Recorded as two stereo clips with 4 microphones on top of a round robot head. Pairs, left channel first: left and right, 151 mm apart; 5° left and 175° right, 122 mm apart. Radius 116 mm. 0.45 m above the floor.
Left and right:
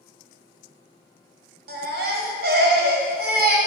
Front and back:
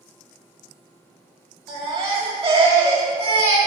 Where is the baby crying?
105° right, 1.6 m.